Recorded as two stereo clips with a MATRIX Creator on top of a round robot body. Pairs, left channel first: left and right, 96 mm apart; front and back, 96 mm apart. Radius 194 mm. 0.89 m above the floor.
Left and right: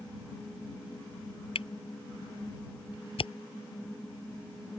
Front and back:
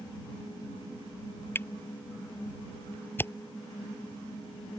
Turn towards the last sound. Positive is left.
turn(degrees=65)